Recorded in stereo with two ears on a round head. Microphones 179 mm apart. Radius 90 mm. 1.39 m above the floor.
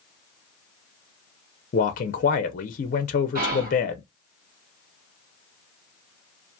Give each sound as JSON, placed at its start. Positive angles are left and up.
{"t": 1.7, "sound": "a man speaking", "side_deg": 40, "distance_m": 0.5}
{"t": 3.4, "sound": "whispering", "side_deg": -50, "distance_m": 0.9}